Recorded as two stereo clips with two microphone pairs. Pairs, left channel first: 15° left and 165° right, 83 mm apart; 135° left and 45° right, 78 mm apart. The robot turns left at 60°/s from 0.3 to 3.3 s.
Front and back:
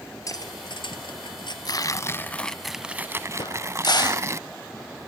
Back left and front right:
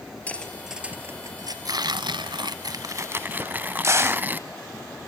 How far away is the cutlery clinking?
About 3 m.